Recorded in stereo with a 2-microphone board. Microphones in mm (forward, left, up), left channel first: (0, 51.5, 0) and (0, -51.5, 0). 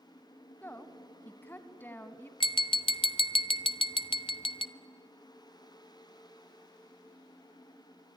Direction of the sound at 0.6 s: 20° left (ahead or behind).